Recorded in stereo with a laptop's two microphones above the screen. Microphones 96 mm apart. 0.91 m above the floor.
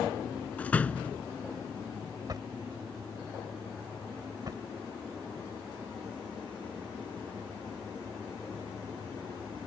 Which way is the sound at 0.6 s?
15° left (ahead or behind).